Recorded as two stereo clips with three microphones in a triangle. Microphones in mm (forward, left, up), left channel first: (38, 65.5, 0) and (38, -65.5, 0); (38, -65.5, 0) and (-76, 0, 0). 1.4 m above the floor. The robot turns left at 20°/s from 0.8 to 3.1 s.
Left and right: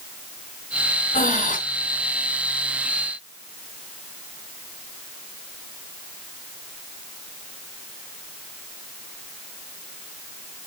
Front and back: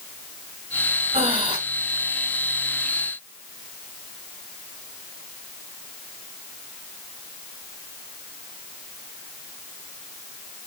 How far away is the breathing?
About 2.5 m.